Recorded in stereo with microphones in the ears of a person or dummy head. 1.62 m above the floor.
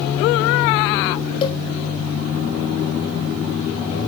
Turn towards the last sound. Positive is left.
turn(degrees=30)  # may be behind; listen again after turning